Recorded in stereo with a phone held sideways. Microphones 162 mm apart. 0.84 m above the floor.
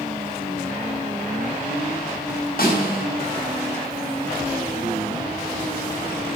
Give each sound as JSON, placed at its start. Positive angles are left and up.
{"t": 2.6, "sound": "a snare drum", "side_deg": 65, "distance_m": 4.0}